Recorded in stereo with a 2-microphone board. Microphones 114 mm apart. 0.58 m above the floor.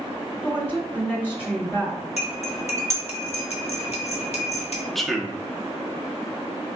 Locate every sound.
0.4 s a woman speaking: 15° left (ahead or behind), 1.9 m
2.2 s cutlery clinking: 65° left (ahead or behind), 1.0 m
5.0 s a man speaking: centre (ahead or behind), 0.7 m